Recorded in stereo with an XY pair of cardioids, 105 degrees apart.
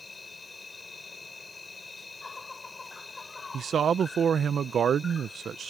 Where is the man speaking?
50° right.